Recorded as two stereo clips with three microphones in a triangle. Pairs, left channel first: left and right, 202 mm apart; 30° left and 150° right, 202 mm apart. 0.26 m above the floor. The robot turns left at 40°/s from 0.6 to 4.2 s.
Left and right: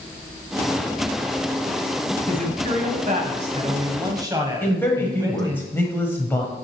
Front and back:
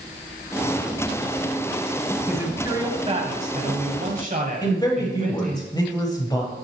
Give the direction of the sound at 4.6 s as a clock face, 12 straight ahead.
11 o'clock.